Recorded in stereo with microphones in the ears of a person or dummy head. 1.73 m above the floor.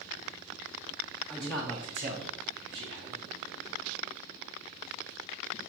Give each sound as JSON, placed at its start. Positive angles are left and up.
{"t": 1.3, "sound": "a man speaking", "side_deg": 5, "distance_m": 0.6}